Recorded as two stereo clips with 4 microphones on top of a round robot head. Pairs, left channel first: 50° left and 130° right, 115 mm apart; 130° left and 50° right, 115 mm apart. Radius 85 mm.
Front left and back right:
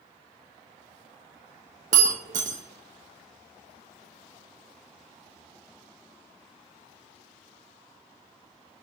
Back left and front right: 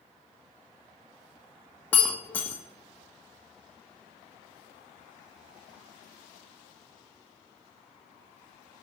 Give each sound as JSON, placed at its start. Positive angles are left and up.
{"t": 1.9, "sound": "breaking glass", "azimuth_deg": -150, "distance_m": 0.9}